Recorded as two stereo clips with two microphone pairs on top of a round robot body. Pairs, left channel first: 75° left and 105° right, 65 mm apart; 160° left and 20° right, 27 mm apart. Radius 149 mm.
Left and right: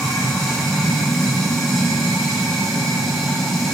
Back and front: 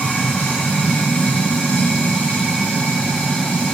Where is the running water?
160° left, 1.2 m.